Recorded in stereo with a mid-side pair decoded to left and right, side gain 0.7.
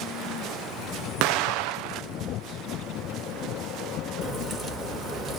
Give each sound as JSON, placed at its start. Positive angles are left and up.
{"t": 1.2, "sound": "an explosion", "azimuth_deg": -65, "distance_m": 0.9}
{"t": 4.2, "sound": "a crack", "azimuth_deg": -5, "distance_m": 4.0}